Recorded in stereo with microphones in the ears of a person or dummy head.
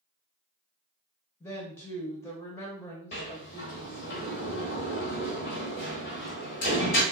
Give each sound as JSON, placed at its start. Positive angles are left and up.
{"t": 1.4, "sound": "a woman speaking", "side_deg": 10, "distance_m": 0.6}
{"t": 3.1, "sound": "a sliding door", "side_deg": 30, "distance_m": 1.1}